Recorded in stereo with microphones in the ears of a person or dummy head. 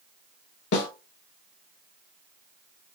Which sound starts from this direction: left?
A snare drum, at 0.7 s.